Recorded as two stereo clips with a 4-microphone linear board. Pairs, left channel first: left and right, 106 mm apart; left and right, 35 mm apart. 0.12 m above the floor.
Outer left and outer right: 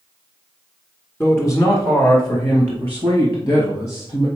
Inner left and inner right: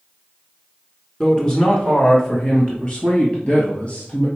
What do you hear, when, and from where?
1.2 s a man speaking: 25° left (ahead or behind), 1.2 m; by 4.3 s 45° left (ahead or behind), 2 m